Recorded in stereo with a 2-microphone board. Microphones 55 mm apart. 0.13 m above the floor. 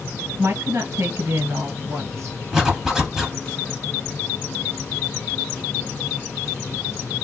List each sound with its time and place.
0.4 s a woman speaking: 50° right (ahead or behind), 1.9 m
2.5 s a zipper: 10° right (ahead or behind), 1.2 m